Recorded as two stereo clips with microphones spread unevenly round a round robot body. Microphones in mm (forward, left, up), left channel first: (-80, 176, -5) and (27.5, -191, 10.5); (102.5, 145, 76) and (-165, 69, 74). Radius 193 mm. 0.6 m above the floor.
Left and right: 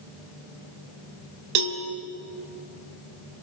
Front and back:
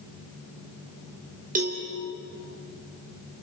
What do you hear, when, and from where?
1.6 s a cowbell: 100° right, 2.5 m